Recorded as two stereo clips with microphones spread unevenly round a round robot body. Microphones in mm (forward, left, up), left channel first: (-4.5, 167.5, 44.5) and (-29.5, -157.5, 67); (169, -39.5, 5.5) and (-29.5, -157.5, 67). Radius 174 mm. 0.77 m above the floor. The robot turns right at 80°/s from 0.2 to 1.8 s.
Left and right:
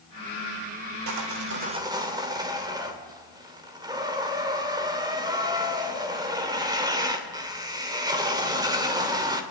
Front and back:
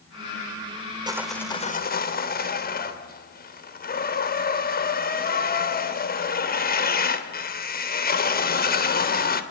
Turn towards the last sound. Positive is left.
turn(degrees=-15)